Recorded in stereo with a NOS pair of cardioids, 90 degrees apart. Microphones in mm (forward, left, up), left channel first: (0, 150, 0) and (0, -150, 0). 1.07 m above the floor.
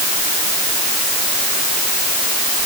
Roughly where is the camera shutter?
No camera shutter in this recording.